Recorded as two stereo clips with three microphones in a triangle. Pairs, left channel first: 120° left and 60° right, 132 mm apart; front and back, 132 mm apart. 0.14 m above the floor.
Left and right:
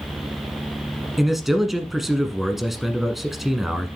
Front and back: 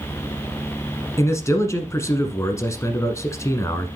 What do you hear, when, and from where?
1.2 s a man speaking: 25° left, 1.1 m